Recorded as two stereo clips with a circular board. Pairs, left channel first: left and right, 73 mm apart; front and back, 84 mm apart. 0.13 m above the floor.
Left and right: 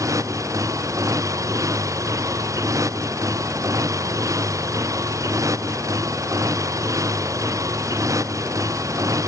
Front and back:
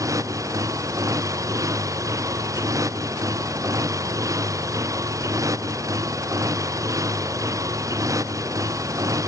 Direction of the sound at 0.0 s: 130° right.